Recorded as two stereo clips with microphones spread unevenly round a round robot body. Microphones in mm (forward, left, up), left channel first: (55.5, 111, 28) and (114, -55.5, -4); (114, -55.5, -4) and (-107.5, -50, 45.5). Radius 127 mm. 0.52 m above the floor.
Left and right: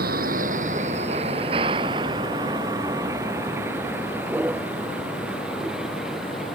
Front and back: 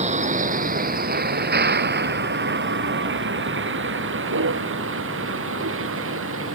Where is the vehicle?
125° right; by 6.6 s 160° right.